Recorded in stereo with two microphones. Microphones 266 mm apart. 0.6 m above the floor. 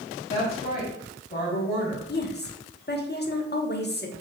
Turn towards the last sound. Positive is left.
turn(degrees=40)  # may be behind; listen again after turning